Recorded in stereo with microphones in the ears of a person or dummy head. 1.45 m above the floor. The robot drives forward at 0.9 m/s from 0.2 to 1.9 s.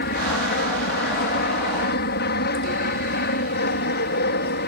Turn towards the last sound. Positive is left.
turn(degrees=55)  # may be behind; listen again after turning